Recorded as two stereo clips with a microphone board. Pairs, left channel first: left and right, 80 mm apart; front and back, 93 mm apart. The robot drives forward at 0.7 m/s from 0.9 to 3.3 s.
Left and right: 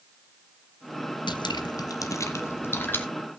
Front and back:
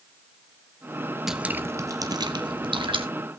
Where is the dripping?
95° left, 0.6 m; by 3.0 s 155° left, 1.4 m.